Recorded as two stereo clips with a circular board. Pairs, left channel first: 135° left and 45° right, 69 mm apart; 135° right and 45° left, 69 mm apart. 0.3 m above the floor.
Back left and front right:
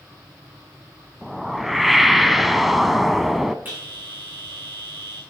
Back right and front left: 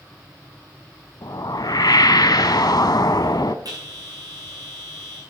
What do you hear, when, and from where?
1.2 s a whoosh: 130° right, 0.7 m
3.6 s a bell: 15° left, 8.5 m